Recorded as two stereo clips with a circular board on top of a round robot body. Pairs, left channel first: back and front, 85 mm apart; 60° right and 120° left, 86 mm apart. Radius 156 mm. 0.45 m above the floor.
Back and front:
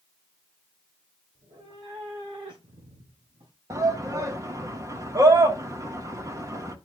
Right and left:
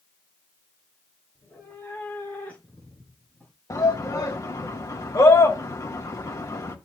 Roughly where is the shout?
Ahead right.